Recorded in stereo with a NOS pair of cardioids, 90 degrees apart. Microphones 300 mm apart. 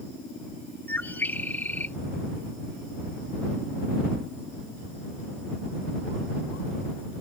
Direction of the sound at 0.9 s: 5° left.